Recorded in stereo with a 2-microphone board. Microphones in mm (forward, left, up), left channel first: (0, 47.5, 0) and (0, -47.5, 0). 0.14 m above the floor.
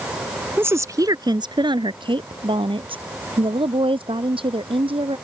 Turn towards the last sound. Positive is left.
turn(degrees=-65)  # may be behind; listen again after turning